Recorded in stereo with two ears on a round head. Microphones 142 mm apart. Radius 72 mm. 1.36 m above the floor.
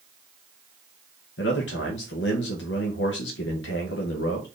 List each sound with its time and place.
1.4 s a man speaking: 80° left, 0.7 m